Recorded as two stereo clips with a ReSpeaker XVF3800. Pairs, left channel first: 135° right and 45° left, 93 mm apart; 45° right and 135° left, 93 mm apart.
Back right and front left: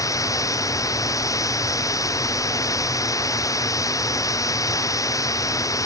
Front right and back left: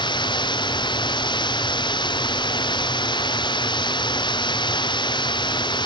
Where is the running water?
80° right.